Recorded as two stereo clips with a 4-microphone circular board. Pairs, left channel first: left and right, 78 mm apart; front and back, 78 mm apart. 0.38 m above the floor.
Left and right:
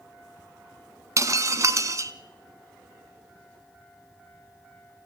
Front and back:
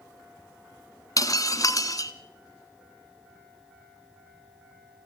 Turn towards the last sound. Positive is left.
turn(degrees=-40)